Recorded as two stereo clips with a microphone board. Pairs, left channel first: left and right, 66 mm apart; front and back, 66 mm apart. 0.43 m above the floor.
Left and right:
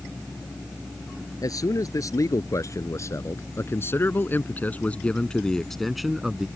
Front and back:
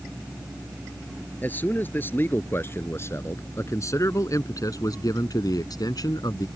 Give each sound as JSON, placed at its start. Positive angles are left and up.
{"t": 1.4, "sound": "a man speaking", "azimuth_deg": 65}